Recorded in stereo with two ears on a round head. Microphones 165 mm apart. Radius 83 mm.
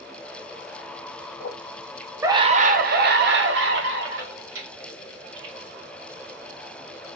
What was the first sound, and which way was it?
A scream, 50° left (ahead or behind).